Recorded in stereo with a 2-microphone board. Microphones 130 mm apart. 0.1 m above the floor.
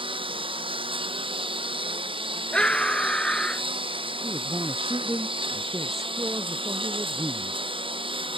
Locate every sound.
0.0 s a lawn mower: 40° right (ahead or behind)
2.5 s a scream: 5° left (ahead or behind)
4.2 s a man speaking: 20° right (ahead or behind)